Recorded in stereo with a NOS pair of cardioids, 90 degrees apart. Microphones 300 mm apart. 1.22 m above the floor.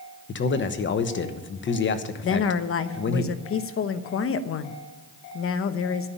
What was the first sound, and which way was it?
A man speaking, 40° left.